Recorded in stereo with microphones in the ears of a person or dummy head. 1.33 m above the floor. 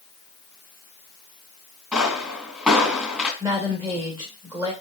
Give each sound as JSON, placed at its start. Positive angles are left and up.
{"t": 1.9, "sound": "a pop", "side_deg": 0, "distance_m": 2.5}
{"t": 3.4, "sound": "a woman speaking", "side_deg": -25, "distance_m": 1.7}